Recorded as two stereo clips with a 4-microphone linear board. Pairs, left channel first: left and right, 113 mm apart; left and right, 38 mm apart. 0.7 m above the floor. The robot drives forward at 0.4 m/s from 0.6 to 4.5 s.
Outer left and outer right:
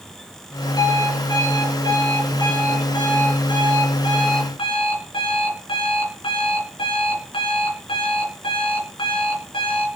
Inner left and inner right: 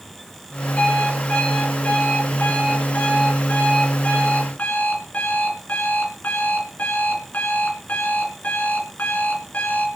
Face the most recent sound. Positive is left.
turn(degrees=50)  # may be behind; listen again after turning